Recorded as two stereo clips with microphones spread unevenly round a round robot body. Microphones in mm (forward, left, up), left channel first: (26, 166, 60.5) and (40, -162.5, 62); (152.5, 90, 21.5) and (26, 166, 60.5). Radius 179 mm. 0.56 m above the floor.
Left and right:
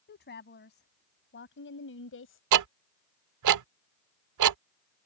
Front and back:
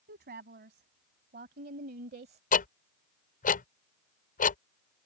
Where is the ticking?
55° right.